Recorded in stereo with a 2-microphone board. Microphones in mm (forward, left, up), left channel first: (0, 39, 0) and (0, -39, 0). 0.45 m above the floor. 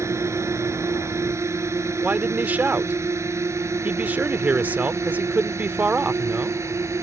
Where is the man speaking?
20° right (ahead or behind).